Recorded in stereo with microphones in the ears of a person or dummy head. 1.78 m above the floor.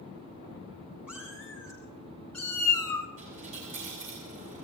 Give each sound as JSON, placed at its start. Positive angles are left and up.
{"t": 1.1, "sound": "a cat meowing", "side_deg": -5, "distance_m": 4.5}
{"t": 3.2, "sound": "a dropped coin", "side_deg": -40, "distance_m": 5.5}